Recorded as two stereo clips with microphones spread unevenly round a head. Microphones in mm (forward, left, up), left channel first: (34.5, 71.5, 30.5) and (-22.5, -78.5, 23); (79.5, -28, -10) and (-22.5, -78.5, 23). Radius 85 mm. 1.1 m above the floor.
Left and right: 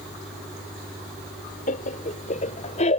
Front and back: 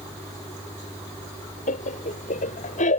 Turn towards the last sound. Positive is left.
turn(degrees=20)